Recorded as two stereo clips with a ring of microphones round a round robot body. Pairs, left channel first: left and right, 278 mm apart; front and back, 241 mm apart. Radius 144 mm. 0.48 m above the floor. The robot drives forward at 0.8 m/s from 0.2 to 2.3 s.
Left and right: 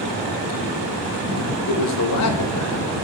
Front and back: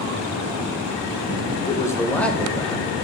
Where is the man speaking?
75° left, 2.5 m; by 3.0 s 85° left, 2.5 m.